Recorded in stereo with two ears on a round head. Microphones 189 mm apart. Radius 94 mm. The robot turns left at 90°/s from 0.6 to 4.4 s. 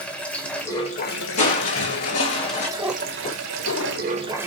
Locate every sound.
0.0 s running water: 175° left, 1.0 m; by 4.5 s 170° right, 1.0 m
1.4 s crushing: 145° left, 3 m; by 2.7 s 30° left, 3 m
2.8 s a cat meowing: 165° right, 0.7 m; by 4.4 s 55° left, 0.7 m